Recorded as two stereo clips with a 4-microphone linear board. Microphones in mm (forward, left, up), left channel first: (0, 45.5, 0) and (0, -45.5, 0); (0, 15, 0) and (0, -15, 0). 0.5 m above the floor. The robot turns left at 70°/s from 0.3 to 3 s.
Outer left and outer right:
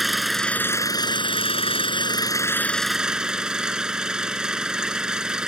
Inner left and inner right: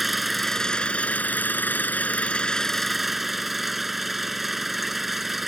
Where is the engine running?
Straight behind; by 5.5 s 10° right.